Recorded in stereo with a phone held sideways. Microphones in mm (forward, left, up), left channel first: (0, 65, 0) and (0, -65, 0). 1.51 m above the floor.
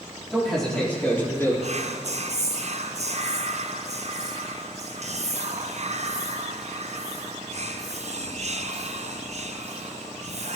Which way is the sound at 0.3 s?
Centre (ahead or behind).